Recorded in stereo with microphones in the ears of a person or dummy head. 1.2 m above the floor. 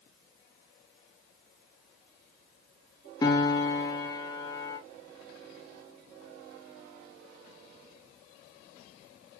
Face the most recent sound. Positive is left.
turn(degrees=15)  # may be behind; listen again after turning